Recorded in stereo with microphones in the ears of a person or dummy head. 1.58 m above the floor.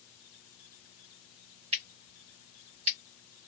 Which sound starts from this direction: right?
Scissors, at 1.7 s.